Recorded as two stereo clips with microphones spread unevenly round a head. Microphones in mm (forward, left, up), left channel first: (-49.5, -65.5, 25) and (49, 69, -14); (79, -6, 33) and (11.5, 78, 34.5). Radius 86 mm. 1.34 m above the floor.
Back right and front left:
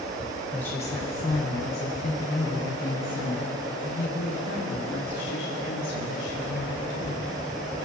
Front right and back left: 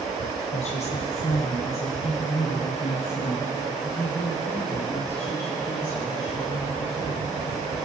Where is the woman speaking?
40° right, 1.0 m; by 7.3 s 110° right, 4 m.